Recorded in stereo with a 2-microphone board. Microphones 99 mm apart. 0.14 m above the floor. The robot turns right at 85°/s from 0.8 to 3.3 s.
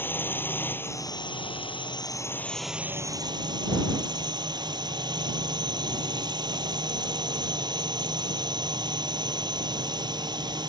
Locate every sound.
0.0 s a drone: 25° left; by 10.7 s 125° right